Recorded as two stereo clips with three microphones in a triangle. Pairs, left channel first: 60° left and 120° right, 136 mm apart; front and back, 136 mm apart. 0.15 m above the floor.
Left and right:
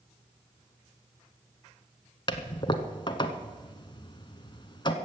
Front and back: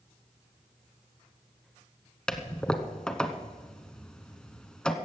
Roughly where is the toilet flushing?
Left.